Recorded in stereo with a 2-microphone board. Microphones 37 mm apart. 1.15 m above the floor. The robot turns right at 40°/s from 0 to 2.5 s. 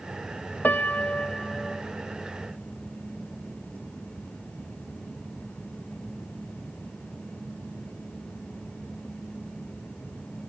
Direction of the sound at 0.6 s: 130° left.